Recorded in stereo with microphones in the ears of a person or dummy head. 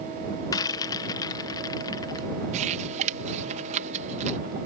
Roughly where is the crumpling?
Right.